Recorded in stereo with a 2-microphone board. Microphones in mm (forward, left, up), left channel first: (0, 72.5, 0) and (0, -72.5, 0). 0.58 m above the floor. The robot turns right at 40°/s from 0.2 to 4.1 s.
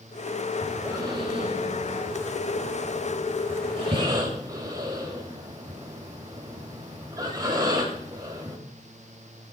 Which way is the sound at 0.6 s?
10° right (ahead or behind).